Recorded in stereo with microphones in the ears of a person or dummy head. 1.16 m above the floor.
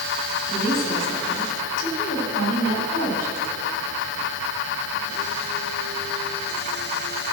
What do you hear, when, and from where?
0.5 s a woman speaking: 55° left (ahead or behind), 2.5 m